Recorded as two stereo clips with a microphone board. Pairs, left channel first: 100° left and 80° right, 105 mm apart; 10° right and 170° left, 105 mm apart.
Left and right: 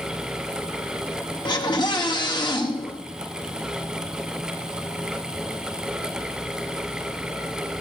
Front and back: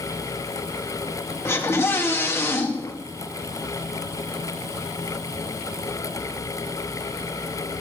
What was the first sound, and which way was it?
A scream, 55° left.